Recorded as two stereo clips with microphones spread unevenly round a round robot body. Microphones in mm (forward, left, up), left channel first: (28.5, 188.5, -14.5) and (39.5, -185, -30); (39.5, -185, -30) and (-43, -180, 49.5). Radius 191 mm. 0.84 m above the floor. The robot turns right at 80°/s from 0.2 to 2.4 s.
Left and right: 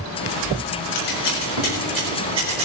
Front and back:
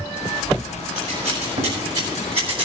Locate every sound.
0.9 s scissors: 80° left, 4 m; by 2.7 s 165° right, 4 m